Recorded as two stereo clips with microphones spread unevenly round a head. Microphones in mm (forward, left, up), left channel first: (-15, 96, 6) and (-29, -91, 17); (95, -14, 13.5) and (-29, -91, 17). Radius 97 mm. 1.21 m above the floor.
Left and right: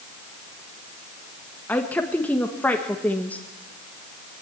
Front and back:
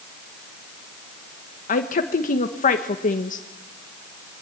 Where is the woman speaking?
5° left, 1.7 m.